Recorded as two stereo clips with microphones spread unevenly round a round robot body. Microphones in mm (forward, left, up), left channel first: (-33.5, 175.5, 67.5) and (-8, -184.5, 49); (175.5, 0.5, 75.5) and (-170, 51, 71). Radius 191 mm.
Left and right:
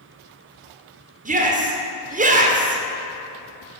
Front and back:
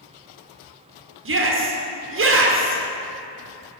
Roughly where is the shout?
Behind right.